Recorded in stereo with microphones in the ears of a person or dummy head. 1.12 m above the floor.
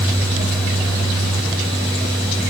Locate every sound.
Only background noise.